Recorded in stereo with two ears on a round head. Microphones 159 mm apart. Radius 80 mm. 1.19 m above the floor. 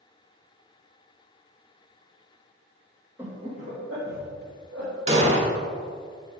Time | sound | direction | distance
3.2 | laughter | 10° right (ahead or behind) | 0.9 m
5.1 | an explosion | 35° right (ahead or behind) | 1.1 m